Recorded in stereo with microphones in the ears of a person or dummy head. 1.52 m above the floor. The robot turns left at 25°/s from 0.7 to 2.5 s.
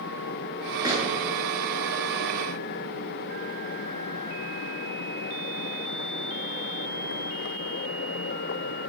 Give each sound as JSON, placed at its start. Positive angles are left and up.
{"t": 0.8, "sound": "a gunshot", "side_deg": -15, "distance_m": 9.5}